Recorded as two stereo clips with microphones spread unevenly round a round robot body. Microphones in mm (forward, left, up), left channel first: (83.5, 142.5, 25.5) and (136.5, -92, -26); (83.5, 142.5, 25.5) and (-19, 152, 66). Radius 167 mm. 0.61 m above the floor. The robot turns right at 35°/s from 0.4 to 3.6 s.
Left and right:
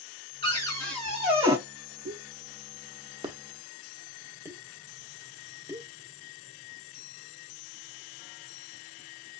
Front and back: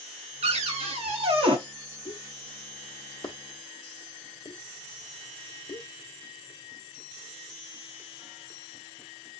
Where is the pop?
55° right, 1.1 m; by 5.9 s 5° right, 1.1 m.